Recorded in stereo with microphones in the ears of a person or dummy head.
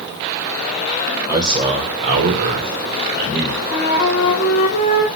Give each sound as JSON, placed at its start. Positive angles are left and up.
{"t": 1.3, "sound": "a man speaking", "side_deg": -15, "distance_m": 0.8}
{"t": 3.7, "sound": "a flute", "side_deg": 50, "distance_m": 0.7}